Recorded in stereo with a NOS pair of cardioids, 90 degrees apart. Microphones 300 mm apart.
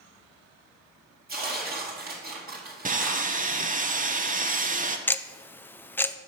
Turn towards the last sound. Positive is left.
turn(degrees=5)